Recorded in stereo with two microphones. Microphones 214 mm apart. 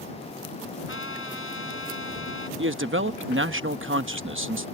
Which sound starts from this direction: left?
A trumpet, at 0.9 s.